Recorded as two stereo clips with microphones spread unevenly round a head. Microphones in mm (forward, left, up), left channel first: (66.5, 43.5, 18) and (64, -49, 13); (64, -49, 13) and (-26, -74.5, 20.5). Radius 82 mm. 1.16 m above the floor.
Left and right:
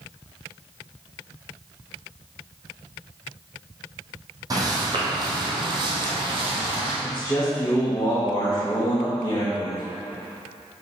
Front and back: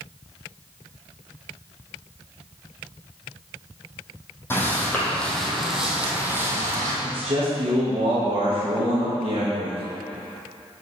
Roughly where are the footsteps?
Ahead right.